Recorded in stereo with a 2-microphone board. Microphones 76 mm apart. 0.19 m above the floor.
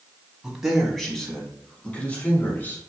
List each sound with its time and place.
0.4 s a man speaking: 5° right (ahead or behind), 1.2 m; by 2.8 s 25° left (ahead or behind), 1.8 m